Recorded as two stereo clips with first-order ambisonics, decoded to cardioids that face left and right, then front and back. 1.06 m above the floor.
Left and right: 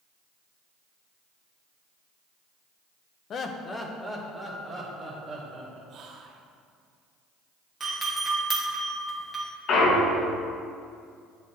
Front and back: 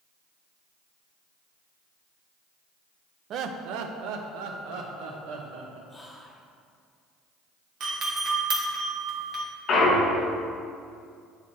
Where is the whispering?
75° right, 0.7 m.